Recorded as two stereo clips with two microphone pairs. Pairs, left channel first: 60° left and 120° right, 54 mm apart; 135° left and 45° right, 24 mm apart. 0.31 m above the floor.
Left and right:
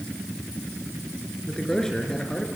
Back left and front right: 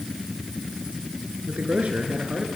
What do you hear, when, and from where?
1.5 s a man speaking: 20° right, 4.5 m